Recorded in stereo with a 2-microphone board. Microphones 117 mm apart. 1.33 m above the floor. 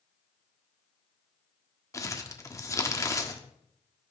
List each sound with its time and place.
1.9 s crumpling: 25° left (ahead or behind), 1.4 m